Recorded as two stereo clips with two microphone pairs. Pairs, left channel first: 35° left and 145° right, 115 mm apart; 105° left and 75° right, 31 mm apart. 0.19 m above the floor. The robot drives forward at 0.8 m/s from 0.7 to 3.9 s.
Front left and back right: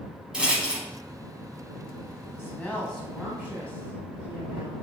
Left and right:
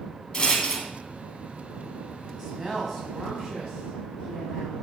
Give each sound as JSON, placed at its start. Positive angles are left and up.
{"t": 0.3, "sound": "a rattle", "azimuth_deg": 145, "distance_m": 0.8}
{"t": 2.4, "sound": "a woman speaking", "azimuth_deg": 5, "distance_m": 1.2}